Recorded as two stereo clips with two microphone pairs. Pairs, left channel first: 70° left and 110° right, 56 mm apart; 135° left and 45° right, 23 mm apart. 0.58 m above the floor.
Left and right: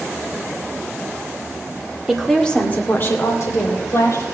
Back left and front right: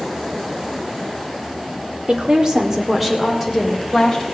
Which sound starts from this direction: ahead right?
A woman speaking, at 2.1 s.